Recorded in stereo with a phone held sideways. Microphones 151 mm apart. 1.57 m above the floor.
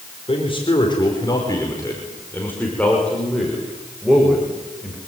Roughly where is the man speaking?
Left.